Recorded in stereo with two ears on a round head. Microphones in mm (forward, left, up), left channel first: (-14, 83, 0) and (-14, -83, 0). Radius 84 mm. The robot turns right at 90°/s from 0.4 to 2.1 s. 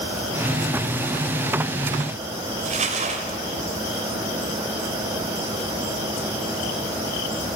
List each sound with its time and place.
2.6 s crumpling: 40° right (ahead or behind), 2.5 m